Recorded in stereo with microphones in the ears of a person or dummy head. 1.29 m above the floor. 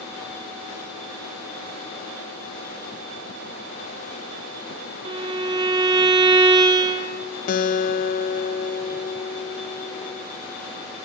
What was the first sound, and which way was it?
A violin, 25° right (ahead or behind).